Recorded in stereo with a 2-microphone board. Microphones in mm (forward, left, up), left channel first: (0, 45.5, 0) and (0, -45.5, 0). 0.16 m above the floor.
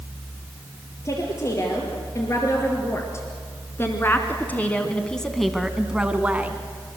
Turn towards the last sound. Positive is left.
turn(degrees=-15)  # may be behind; listen again after turning